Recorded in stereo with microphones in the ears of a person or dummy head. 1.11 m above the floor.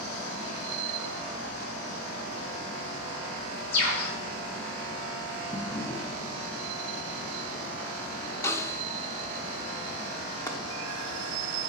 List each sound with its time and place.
3.7 s a bird: 60° left (ahead or behind), 6.5 m
5.5 s a drawer: 25° left (ahead or behind), 2.5 m
8.4 s a snare drum: 15° left (ahead or behind), 0.9 m
10.5 s chopping: 20° left (ahead or behind), 1.3 m